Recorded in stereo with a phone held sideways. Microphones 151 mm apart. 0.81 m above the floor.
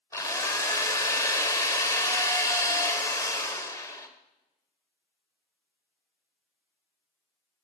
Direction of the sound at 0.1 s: 20° left (ahead or behind).